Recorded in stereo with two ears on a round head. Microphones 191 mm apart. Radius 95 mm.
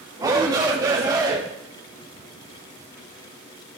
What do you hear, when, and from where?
0.2 s a shout: 20° right (ahead or behind), 1.8 m